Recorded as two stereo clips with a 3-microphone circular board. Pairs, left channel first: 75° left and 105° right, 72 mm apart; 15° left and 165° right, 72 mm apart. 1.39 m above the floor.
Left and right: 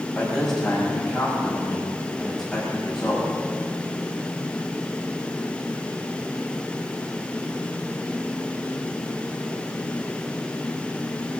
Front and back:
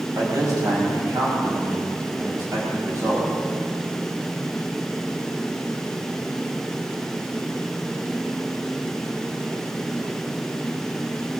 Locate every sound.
0.1 s a man speaking: 160° left, 7 m